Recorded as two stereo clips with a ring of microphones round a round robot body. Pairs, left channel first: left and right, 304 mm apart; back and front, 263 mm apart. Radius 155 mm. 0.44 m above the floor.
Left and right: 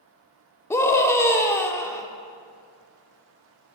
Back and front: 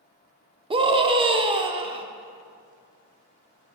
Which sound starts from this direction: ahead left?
A scream, at 0.7 s.